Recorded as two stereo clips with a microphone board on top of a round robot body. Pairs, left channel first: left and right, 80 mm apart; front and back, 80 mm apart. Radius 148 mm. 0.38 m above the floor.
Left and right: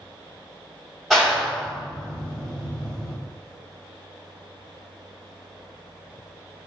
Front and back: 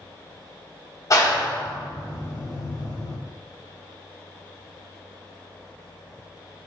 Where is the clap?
5° left, 1.4 m.